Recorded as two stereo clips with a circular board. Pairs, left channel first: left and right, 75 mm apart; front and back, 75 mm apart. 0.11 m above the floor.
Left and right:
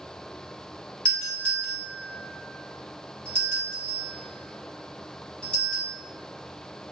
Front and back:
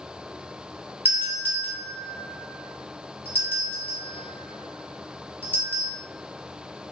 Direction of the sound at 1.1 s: 155° left.